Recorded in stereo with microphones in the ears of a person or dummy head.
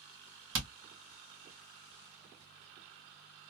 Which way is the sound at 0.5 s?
65° right (ahead or behind).